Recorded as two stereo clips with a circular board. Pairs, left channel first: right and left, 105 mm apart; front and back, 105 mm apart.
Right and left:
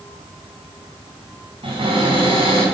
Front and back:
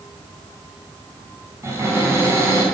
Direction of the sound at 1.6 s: 120° left.